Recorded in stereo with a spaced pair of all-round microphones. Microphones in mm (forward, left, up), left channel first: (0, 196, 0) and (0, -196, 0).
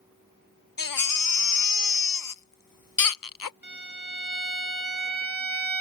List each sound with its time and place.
0.8 s a baby crying: 60° left (ahead or behind)
3.6 s a violin: 25° left (ahead or behind)